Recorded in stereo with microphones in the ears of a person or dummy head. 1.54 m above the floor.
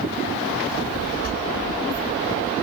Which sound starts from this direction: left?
A child speaking, at 0.7 s.